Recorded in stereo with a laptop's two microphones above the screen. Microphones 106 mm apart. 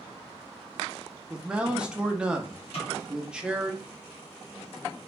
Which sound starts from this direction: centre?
A man speaking, at 1.3 s.